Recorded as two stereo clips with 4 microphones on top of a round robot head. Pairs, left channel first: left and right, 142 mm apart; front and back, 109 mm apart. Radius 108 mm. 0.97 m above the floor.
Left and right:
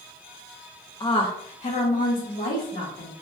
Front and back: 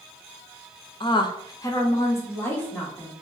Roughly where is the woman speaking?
Ahead left.